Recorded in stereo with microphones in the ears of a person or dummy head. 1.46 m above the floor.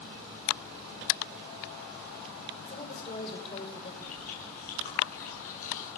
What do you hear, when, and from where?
2.7 s a woman speaking: 30° left (ahead or behind), 5.5 m
4.0 s chewing: 45° left (ahead or behind), 9.5 m